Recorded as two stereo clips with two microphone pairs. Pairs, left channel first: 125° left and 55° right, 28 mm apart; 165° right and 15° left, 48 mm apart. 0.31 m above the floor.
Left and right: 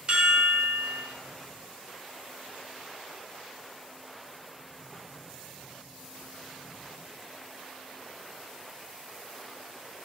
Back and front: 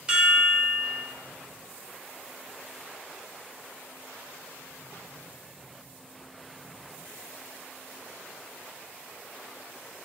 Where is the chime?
45° right, 1.8 m.